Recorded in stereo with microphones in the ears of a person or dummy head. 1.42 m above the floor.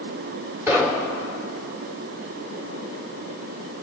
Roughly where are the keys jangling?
I don't hear keys jangling.